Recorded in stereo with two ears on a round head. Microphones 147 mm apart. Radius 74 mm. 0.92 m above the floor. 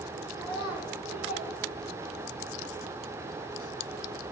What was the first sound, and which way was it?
A child speaking, 5° right (ahead or behind).